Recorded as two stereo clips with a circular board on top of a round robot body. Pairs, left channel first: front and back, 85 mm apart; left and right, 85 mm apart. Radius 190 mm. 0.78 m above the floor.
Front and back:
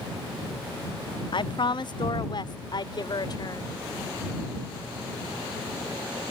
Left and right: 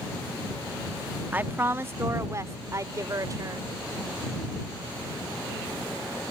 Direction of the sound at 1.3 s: 20° right.